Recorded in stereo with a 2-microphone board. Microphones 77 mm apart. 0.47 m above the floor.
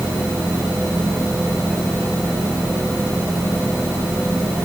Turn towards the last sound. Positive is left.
No sound to turn to.